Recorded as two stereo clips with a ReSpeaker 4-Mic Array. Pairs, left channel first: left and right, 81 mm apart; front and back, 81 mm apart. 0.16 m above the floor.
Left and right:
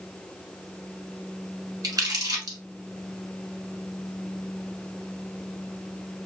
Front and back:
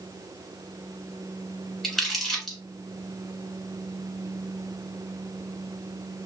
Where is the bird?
No bird in this recording.